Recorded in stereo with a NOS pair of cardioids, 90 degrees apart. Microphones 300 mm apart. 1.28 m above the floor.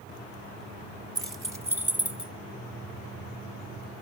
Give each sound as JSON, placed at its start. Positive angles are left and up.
{"t": 1.1, "sound": "keys jangling", "azimuth_deg": -10, "distance_m": 1.5}